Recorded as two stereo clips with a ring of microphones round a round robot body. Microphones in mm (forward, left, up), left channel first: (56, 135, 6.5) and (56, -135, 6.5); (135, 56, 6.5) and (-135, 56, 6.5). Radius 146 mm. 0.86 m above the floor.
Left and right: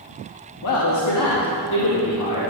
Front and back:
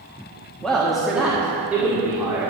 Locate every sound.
0.6 s a man speaking: 85° left, 1.5 m; by 2.4 s 100° left, 2.5 m